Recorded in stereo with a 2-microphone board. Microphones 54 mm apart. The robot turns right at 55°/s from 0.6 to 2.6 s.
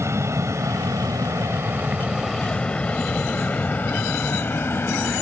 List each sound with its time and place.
0.0 s an aircraft: 55° right (ahead or behind); by 5.2 s 45° left (ahead or behind)